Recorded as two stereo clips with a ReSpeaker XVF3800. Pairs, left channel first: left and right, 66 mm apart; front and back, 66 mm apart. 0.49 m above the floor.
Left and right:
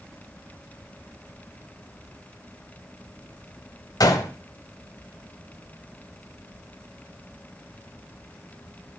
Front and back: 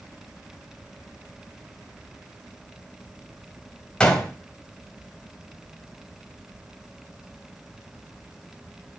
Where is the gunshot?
75° left, 1.3 m.